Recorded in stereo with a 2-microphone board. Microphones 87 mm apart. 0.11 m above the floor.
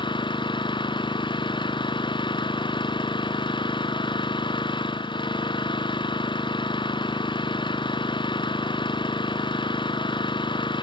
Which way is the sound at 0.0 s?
70° left (ahead or behind).